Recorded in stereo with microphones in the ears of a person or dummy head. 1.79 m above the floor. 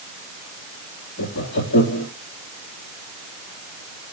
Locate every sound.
1.2 s laughter: 65° left (ahead or behind), 3 m